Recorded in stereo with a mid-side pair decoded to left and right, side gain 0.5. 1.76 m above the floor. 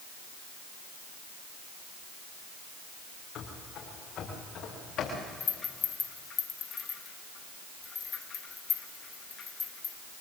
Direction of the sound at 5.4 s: 50° left.